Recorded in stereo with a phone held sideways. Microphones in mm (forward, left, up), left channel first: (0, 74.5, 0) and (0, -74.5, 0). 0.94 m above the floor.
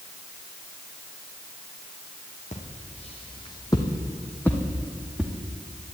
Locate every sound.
2.5 s footsteps: 55° left (ahead or behind), 2 m; by 5.3 s 5° right (ahead or behind), 2.5 m